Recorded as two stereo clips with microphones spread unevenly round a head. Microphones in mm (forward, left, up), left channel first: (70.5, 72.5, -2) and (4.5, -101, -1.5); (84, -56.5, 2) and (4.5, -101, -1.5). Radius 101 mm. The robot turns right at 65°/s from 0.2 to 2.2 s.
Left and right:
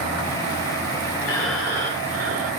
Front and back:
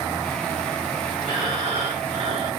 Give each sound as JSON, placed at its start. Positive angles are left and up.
{"t": 1.2, "sound": "breathing", "azimuth_deg": 140, "distance_m": 1.7}